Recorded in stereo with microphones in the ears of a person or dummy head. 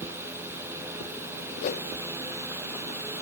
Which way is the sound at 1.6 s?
40° left (ahead or behind).